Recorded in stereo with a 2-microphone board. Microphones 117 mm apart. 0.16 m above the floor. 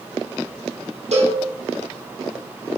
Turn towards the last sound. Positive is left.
turn(degrees=-70)  # may be behind; listen again after turning